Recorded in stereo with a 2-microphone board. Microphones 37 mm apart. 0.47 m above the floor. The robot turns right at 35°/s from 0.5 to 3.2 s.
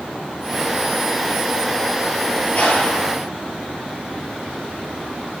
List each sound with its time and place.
2.5 s a clap: 40° left (ahead or behind), 8 m; by 4.6 s 60° left (ahead or behind), 8 m